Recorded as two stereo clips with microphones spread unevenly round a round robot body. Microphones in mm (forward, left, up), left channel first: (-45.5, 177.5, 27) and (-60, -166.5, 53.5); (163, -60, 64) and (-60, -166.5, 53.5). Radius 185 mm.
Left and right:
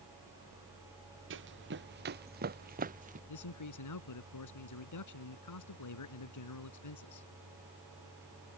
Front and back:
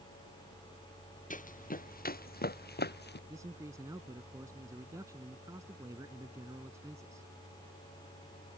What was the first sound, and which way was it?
Running footsteps, 30° right.